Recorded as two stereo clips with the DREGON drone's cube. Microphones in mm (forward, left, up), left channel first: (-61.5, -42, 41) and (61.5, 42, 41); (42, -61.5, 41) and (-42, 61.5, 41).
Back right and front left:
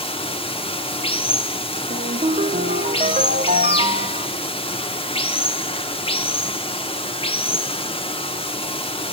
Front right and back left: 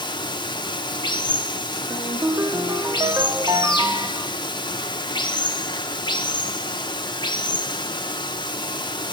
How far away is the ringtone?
About 0.9 m.